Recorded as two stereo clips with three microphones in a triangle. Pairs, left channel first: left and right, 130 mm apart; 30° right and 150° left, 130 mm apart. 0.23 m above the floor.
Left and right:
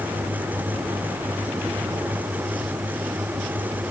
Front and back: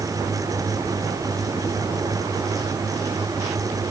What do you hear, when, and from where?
Only background noise.